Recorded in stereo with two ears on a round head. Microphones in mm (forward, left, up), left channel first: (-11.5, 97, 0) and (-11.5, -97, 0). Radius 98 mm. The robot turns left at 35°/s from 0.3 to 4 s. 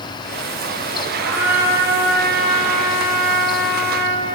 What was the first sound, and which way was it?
A trumpet, 90° right.